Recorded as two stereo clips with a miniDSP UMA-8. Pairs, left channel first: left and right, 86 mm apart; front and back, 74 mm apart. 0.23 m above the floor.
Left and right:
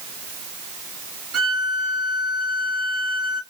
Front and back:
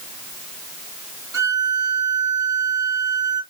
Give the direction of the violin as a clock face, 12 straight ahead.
6 o'clock.